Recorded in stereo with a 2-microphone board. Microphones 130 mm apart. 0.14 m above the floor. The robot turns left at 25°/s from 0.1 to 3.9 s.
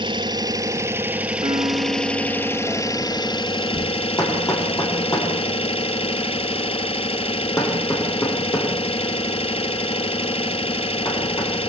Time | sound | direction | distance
0.0 | an engine running | 140° right | 1.0 m
1.4 | a piano | 65° right | 0.9 m
4.2 | hammering | 30° left (ahead or behind) | 7 m